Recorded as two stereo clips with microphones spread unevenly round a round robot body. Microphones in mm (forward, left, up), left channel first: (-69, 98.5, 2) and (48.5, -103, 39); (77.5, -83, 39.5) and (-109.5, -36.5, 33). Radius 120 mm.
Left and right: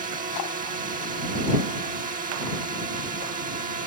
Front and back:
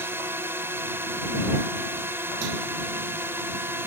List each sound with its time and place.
0.0 s a drone: 120° right